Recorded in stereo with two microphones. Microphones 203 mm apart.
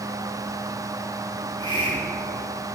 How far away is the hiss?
About 2.5 m.